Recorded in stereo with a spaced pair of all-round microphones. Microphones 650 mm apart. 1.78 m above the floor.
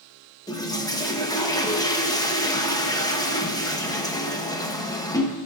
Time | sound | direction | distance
0.5 | a toilet flushing | 5° left (ahead or behind) | 1.0 m